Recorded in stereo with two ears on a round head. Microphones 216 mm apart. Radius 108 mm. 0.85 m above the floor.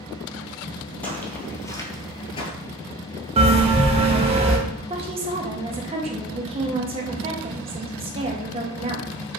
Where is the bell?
25° right (ahead or behind), 0.8 m.